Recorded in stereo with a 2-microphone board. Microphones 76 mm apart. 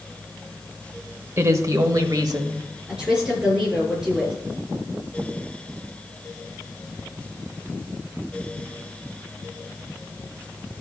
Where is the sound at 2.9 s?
10° right (ahead or behind), 5 m.